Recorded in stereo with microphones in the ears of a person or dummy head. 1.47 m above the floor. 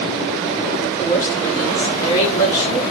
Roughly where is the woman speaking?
Left.